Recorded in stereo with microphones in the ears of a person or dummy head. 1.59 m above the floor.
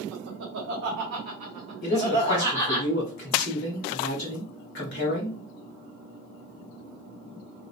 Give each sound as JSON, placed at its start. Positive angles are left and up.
{"t": 0.1, "sound": "laughter", "side_deg": -70, "distance_m": 1.5}
{"t": 1.8, "sound": "a man speaking", "side_deg": 60, "distance_m": 1.3}